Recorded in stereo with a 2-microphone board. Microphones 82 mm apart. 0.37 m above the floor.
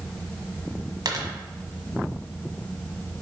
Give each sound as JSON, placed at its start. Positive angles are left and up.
{"t": 1.1, "sound": "a dropped coin", "side_deg": -50, "distance_m": 1.5}